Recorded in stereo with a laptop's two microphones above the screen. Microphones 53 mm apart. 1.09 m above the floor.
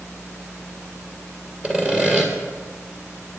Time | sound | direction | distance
1.6 | sawing | 20° right (ahead or behind) | 2 m